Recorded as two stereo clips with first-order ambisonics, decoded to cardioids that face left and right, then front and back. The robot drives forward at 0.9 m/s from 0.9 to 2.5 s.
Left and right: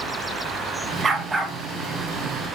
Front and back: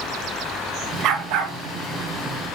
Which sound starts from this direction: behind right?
A dog barking, at 1.0 s.